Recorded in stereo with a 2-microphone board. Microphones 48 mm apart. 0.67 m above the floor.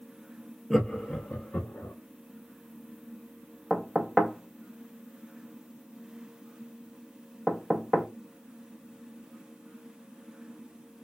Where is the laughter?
5° left (ahead or behind), 0.6 m; by 1.9 s 40° left (ahead or behind), 0.9 m.